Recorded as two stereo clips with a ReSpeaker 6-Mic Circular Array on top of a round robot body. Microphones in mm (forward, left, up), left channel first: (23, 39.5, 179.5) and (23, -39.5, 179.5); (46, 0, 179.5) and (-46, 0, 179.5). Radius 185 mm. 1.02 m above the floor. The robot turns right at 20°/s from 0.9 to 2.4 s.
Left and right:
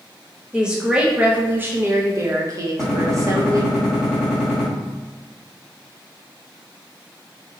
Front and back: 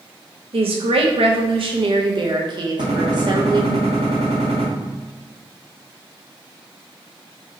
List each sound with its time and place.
0.5 s a woman speaking: 170° right, 0.9 m; by 3.8 s 140° right, 0.9 m
2.8 s a gunshot: 175° right, 1.2 m